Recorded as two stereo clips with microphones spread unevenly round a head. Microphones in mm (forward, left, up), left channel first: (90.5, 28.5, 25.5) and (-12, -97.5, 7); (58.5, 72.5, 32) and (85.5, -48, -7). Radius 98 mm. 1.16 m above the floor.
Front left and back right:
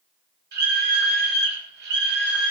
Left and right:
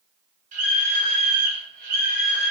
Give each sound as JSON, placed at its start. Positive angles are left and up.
{"t": 0.5, "sound": "a scream", "azimuth_deg": -115, "distance_m": 4.5}